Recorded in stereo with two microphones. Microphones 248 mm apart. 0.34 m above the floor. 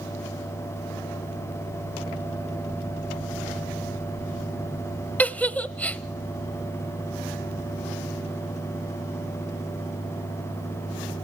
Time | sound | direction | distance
5.2 | a giggle | 5° left (ahead or behind) | 0.6 m